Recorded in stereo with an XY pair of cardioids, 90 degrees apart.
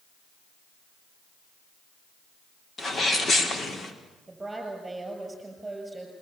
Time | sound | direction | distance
2.8 | a sneeze | 45° left | 4.5 m
4.3 | a woman speaking | 20° right | 7 m